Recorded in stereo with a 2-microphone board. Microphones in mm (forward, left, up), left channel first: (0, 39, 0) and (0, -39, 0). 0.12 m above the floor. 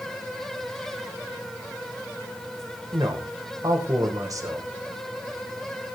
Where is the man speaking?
50° right (ahead or behind), 4.5 m.